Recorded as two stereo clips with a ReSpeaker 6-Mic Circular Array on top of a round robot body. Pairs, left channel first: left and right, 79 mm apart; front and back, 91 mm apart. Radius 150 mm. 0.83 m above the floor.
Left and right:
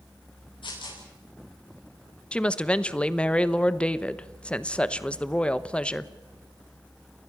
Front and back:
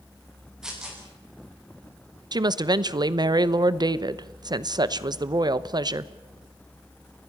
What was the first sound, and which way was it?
Tearing paper, 95° left.